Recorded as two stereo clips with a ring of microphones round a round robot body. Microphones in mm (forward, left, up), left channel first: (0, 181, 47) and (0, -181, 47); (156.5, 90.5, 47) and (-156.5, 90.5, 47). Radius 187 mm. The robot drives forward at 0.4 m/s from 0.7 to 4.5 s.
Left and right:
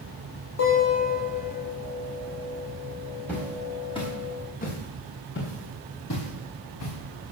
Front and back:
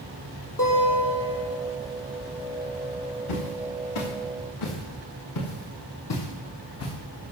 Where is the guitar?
40° left, 5.5 m; by 1.6 s 45° left, 5 m.